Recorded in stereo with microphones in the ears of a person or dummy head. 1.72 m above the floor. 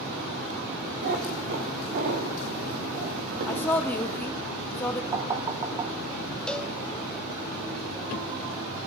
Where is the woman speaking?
10° left (ahead or behind), 1.0 m.